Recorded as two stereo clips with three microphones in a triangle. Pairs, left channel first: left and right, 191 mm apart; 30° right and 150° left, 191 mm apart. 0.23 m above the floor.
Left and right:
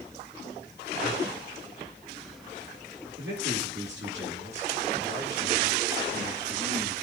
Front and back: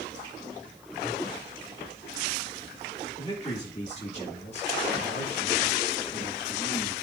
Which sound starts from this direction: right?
A man speaking, at 3.2 s.